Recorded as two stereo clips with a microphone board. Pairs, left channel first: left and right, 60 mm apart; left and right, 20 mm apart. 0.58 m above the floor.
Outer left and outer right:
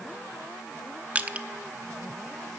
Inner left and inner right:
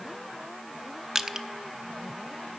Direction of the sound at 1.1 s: 25° right (ahead or behind).